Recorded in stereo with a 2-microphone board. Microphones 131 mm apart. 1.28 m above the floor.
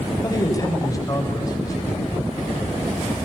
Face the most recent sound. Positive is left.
turn(degrees=25)  # may be behind; listen again after turning